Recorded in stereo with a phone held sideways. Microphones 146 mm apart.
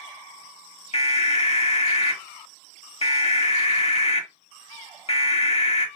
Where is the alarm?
45° left (ahead or behind), 0.9 m.